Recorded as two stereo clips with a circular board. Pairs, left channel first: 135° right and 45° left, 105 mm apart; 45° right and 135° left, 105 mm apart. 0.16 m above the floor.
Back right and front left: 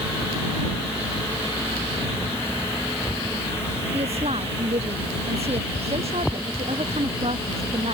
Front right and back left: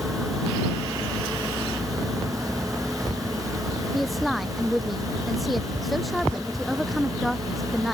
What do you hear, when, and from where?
3.9 s a woman speaking: 45° left